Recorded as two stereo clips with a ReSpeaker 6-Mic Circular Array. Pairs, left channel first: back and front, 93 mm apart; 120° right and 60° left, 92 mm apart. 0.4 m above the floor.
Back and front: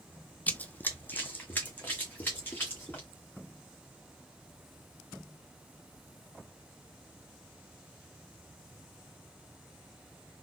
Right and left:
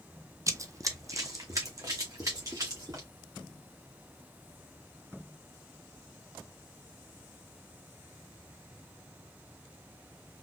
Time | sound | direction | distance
0.5 | running footsteps | 110° left | 0.6 m